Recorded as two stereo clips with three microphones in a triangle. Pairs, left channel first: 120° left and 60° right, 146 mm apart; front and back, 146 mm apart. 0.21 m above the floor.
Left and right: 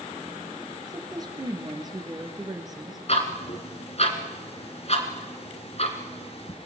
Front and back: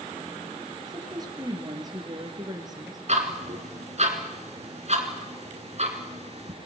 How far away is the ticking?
About 2.5 m.